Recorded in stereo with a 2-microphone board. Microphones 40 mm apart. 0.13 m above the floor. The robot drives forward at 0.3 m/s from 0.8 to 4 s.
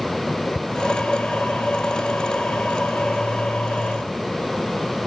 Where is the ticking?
60° left (ahead or behind), 1.2 m.